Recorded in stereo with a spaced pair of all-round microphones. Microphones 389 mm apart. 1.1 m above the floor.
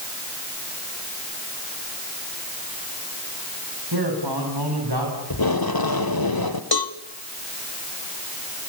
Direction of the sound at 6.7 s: 70° left (ahead or behind).